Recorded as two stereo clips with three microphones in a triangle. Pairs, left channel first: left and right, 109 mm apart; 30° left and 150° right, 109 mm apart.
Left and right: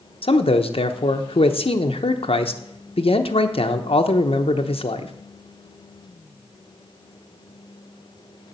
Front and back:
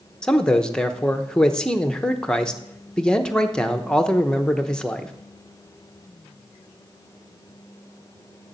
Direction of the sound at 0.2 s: 110° left.